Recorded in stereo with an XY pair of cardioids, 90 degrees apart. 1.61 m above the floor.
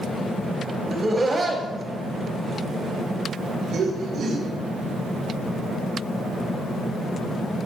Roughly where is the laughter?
Ahead right.